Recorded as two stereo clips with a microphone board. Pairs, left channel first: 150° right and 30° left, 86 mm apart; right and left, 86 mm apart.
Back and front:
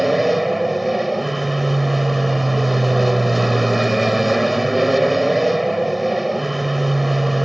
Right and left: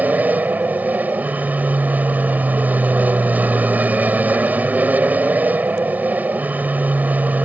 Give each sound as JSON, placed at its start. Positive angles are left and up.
{"t": 0.0, "sound": "an aircraft", "azimuth_deg": 120}